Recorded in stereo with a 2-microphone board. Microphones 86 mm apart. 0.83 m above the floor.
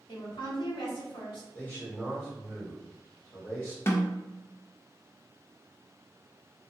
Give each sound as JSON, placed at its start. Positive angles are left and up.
{"t": 0.1, "sound": "a woman speaking", "side_deg": 70, "distance_m": 1.5}
{"t": 1.6, "sound": "a man speaking", "side_deg": 35, "distance_m": 1.7}
{"t": 3.9, "sound": "a snare drum", "side_deg": 30, "distance_m": 0.5}